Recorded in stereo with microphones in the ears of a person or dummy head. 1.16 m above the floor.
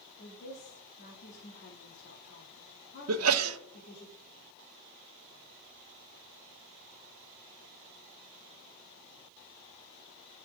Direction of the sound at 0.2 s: 60° left (ahead or behind).